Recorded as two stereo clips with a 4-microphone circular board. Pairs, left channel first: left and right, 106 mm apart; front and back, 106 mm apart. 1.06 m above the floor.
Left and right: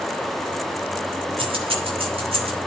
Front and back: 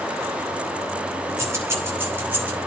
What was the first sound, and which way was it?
Keys jangling, 120° right.